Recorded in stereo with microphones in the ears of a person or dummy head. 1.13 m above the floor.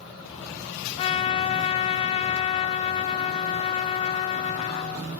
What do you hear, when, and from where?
1.0 s a trumpet: 35° left (ahead or behind), 0.7 m